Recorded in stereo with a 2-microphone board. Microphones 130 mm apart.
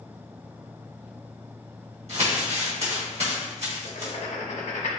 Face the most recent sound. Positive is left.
turn(degrees=70)  # may be behind; listen again after turning